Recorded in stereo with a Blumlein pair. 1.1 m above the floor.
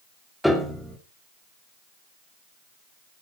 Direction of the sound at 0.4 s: Straight ahead.